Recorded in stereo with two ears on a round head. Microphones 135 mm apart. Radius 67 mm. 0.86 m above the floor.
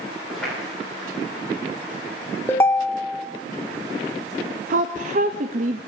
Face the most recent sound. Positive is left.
turn(degrees=-55)  # may be behind; listen again after turning